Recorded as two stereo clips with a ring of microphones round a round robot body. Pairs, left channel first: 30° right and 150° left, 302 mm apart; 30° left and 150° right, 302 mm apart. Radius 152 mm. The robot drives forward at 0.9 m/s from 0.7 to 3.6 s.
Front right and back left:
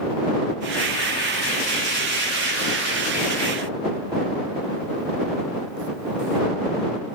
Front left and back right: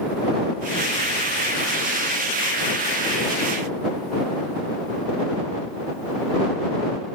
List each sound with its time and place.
Only background noise.